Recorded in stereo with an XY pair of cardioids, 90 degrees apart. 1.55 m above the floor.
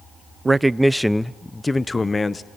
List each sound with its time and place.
0.5 s a man speaking: 25° right, 0.6 m; by 2.5 s 30° left, 1.4 m